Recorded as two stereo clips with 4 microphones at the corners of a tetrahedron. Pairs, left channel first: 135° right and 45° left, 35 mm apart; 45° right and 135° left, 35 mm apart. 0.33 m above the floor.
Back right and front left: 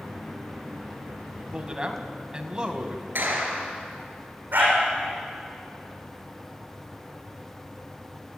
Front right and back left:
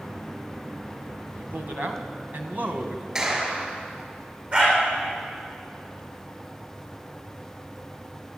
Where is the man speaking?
110° left, 2.5 m.